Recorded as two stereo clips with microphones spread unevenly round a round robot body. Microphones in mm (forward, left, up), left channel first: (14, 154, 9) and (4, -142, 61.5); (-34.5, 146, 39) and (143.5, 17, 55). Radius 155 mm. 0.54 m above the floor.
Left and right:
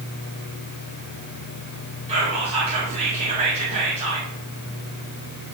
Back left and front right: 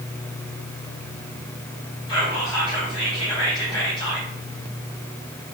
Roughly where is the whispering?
Behind.